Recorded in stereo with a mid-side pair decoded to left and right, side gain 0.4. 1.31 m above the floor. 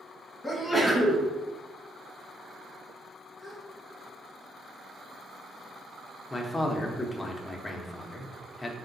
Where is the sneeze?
10° left, 1.0 m.